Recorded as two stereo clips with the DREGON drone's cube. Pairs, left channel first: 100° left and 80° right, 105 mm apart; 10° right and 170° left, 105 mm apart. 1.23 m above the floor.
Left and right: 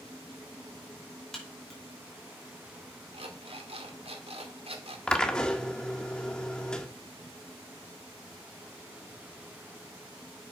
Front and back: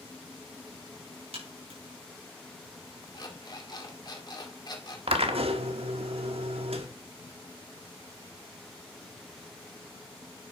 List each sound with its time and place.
1.3 s a crack: 175° right, 5 m
3.1 s an alarm clock: 60° right, 1.9 m
5.1 s a drill: straight behind, 1.4 m